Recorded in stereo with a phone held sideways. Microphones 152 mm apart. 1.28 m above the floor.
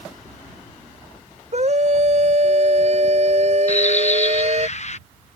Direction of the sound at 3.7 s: 50° left (ahead or behind).